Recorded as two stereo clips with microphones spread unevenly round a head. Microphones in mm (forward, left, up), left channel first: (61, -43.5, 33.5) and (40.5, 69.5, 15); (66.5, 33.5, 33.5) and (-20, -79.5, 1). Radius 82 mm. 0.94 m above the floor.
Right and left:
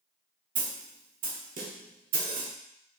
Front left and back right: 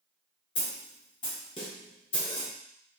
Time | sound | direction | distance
0.6 | a snare drum | 110° left | 0.9 m